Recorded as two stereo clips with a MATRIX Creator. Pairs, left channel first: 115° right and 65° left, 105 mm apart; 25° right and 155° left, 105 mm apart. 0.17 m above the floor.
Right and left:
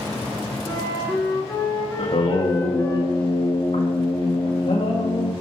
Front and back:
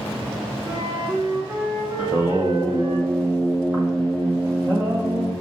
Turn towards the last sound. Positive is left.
turn(degrees=-125)